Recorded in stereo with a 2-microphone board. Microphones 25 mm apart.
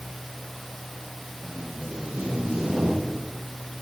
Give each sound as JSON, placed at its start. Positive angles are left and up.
{"t": 1.4, "sound": "tape being pulled", "side_deg": -45, "distance_m": 9.5}